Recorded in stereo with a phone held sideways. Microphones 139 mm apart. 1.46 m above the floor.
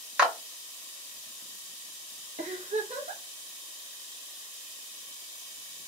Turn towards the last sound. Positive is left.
turn(degrees=-55)  # may be behind; listen again after turning